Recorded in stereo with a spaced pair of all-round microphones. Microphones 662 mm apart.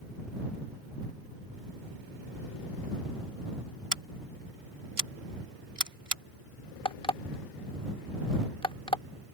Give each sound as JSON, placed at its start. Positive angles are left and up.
{"t": 3.9, "sound": "scissors", "side_deg": -60}
{"t": 6.8, "sound": "an alarm clock", "side_deg": 10}